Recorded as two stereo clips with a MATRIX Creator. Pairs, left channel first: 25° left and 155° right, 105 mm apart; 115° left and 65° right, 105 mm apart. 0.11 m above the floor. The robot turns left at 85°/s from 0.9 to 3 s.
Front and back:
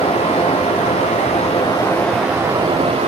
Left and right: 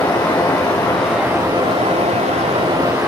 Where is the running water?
40° left, 3 m; by 3.1 s 140° right, 3 m.